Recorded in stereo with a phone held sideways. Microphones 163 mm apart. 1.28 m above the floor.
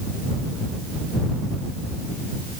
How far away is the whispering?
No whispering in this recording.